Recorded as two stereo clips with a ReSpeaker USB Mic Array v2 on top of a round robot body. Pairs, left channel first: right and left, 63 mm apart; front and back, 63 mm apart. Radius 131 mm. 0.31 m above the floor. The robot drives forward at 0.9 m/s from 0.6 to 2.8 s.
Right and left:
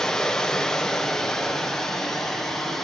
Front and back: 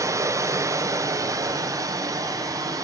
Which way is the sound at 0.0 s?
170° right.